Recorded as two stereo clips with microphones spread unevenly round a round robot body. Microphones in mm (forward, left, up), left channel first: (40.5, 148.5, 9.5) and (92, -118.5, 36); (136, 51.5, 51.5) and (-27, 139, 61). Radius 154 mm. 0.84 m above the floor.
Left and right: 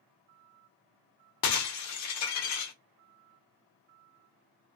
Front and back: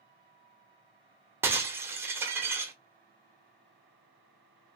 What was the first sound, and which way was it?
Breaking glass, 75° left.